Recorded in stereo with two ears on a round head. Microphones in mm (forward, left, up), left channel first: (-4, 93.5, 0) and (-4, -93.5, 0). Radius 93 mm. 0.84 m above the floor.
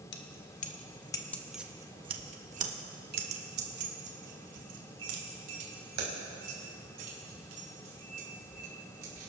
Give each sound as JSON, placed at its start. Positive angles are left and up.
{"t": 0.1, "sound": "keys jangling", "side_deg": 55, "distance_m": 1.0}